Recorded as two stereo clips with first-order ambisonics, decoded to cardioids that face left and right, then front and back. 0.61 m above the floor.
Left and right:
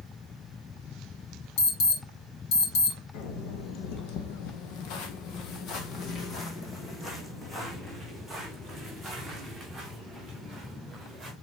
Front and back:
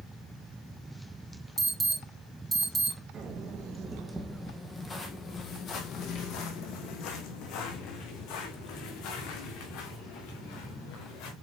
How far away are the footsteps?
About 2.0 m.